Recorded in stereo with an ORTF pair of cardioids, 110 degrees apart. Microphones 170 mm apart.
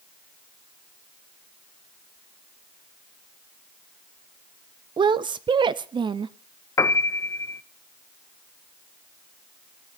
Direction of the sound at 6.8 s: 15° left.